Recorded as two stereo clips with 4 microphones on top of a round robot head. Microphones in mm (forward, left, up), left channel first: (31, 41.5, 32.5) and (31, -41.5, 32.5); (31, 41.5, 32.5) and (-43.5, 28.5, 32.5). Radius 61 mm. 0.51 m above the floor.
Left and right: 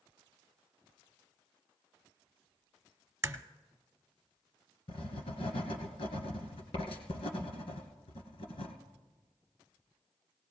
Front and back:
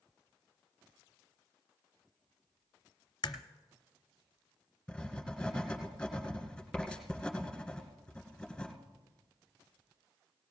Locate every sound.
3.2 s a crack: 35° right, 0.9 m
4.9 s writing: 95° left, 2.5 m